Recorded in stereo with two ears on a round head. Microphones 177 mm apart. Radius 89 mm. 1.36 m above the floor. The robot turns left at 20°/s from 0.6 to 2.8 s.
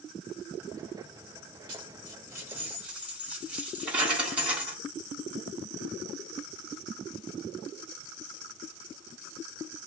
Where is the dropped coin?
25° right (ahead or behind), 1.6 m; by 4.8 s 5° right (ahead or behind), 1.6 m.